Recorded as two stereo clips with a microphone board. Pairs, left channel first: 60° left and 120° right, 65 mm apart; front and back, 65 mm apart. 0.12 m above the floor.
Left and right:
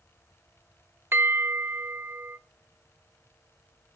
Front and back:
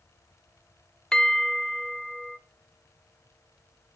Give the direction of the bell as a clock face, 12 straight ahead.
2 o'clock.